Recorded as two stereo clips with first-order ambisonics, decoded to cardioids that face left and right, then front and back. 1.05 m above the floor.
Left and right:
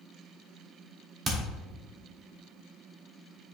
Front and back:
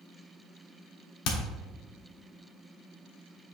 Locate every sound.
1.2 s hammering: 30° right, 1.3 m